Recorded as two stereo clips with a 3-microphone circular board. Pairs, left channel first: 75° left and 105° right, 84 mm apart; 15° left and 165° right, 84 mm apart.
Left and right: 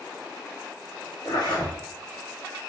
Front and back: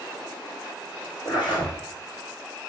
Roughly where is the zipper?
Ahead left.